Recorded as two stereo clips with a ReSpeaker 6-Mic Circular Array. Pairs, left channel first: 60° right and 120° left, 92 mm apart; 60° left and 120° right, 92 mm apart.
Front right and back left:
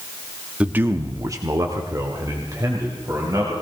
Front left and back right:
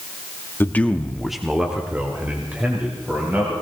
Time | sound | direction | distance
0.6 | a man speaking | 65° left | 1.0 m